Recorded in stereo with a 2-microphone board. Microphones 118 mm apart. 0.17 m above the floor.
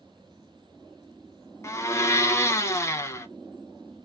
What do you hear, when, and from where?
1.6 s a blender: 25° left (ahead or behind), 0.5 m